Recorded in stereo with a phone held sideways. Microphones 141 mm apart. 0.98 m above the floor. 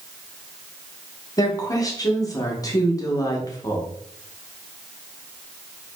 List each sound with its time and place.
1.4 s a woman speaking: 25° left (ahead or behind), 0.7 m